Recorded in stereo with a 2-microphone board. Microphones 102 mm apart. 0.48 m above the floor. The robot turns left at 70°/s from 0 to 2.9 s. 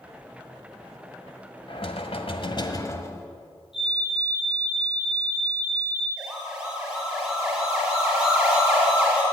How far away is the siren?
About 7 m.